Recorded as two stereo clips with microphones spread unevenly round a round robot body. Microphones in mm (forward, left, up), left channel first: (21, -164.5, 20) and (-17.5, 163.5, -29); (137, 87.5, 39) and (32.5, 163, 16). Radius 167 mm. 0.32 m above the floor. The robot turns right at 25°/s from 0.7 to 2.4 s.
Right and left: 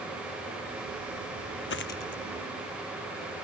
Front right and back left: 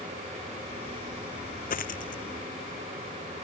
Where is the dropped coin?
25° right; by 2.2 s 10° right.